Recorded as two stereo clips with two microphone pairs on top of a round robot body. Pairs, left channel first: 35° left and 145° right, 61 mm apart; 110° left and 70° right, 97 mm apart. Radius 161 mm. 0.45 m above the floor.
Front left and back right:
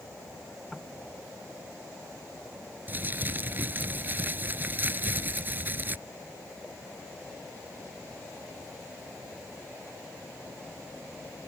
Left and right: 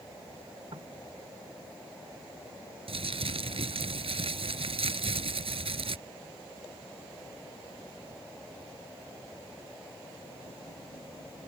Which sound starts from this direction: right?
Crumpling, at 2.9 s.